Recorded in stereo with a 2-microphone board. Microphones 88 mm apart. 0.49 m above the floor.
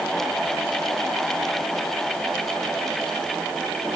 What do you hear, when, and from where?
Only background noise.